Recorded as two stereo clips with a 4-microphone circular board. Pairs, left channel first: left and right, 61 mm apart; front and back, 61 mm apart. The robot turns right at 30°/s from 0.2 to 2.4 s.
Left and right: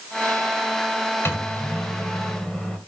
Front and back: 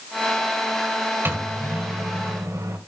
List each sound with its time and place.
1.2 s a microwave: 130° left, 2.0 m; by 2.8 s 165° left, 2.0 m